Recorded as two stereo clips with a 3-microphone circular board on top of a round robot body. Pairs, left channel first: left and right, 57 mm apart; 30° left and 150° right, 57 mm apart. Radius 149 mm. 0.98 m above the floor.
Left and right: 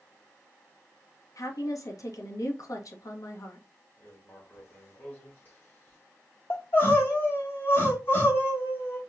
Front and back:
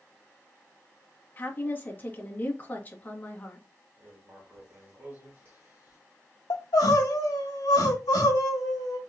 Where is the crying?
35° left, 1.0 m.